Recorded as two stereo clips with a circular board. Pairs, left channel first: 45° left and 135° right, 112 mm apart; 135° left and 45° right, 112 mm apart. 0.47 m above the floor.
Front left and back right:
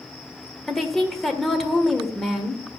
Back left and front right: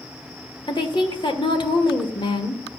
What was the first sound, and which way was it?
A woman speaking, 130° left.